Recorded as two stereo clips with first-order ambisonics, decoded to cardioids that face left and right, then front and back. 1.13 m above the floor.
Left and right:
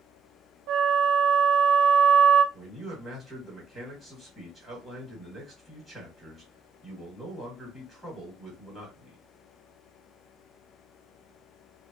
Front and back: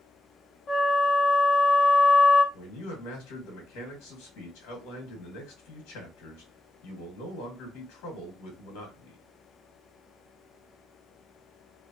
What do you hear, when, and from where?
0.7 s a flute: 60° right, 0.5 m
2.5 s a man speaking: 5° right, 1.5 m